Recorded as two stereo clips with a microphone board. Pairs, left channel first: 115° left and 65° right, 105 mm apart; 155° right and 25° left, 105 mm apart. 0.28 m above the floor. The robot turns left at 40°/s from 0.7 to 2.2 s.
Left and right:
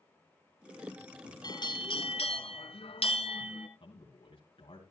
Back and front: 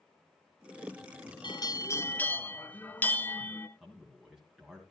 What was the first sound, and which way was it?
A bell, 160° left.